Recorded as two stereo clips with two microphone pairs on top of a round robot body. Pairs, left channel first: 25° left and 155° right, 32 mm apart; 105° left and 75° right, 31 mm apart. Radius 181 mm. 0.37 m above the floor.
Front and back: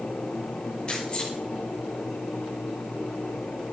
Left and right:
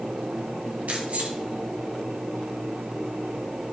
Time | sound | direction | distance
0.9 | keys jangling | 40° right | 2.5 m